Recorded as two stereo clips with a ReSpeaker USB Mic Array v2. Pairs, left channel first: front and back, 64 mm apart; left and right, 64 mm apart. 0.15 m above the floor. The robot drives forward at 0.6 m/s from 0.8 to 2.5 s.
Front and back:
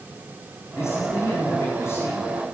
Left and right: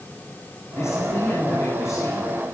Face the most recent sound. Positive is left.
turn(degrees=55)